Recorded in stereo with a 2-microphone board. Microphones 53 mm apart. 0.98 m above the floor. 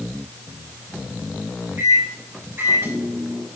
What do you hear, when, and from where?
1.8 s a microwave: 50° right (ahead or behind), 5 m